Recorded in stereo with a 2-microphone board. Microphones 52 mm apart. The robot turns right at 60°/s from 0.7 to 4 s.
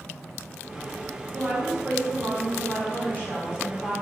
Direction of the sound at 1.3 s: 40° right.